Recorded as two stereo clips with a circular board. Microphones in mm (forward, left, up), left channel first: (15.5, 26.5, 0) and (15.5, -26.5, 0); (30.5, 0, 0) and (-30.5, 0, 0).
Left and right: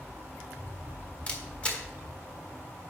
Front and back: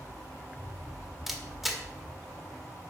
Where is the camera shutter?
95° left, 1.3 m.